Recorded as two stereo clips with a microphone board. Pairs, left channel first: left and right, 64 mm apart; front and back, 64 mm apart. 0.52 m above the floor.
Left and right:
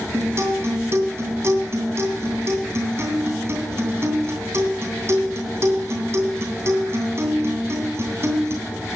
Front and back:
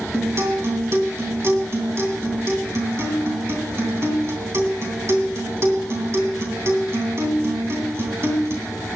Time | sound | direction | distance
0.1 | a guitar | 135° right | 3 m